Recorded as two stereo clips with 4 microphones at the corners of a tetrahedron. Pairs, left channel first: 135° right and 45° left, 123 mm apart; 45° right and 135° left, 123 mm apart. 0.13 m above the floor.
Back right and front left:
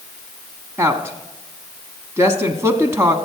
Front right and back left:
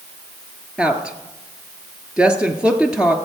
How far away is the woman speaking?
About 1.1 m.